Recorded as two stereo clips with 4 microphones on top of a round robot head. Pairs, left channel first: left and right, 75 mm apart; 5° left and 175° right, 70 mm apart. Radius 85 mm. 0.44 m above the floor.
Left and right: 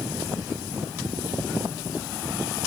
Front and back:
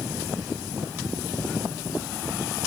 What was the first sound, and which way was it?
Only background noise.